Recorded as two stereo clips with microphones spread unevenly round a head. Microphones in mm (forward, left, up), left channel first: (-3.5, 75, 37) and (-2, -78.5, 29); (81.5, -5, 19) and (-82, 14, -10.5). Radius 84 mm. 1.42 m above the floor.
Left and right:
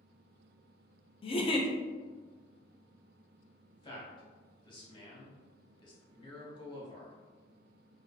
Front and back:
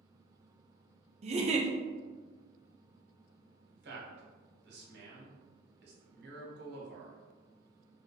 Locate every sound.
1.2 s a giggle: 145° left, 0.5 m
3.7 s a man speaking: 150° left, 1.2 m